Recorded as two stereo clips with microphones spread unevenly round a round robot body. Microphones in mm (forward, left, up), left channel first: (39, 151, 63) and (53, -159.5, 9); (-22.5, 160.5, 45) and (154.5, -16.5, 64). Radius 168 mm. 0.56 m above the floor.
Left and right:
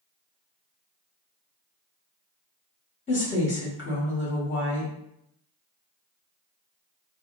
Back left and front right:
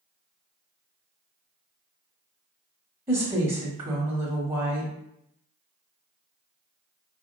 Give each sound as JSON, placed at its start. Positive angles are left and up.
{"t": 3.1, "sound": "a woman speaking", "azimuth_deg": 20, "distance_m": 1.1}